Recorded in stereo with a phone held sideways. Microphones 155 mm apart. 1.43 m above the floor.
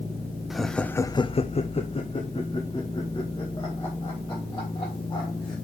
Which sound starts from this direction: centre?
Laughter, at 0.5 s.